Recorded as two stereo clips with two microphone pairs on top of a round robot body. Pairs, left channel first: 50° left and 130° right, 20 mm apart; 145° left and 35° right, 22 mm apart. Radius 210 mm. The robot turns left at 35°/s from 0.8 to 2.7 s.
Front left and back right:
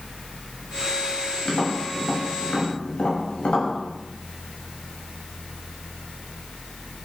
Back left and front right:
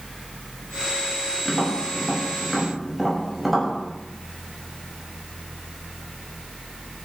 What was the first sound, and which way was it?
Tapping, 95° left.